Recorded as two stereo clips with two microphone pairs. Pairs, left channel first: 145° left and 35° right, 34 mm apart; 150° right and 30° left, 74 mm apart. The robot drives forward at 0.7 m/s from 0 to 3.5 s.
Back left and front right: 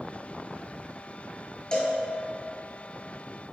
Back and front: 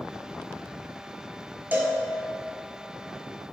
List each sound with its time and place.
1.7 s a cowbell: 90° left, 0.6 m; by 2.0 s 110° left, 0.6 m